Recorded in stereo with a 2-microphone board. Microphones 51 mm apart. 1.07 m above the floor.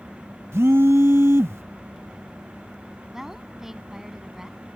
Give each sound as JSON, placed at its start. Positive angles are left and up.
{"t": 0.5, "sound": "a phone buzzing", "side_deg": -65}
{"t": 3.1, "sound": "a woman speaking", "side_deg": -10}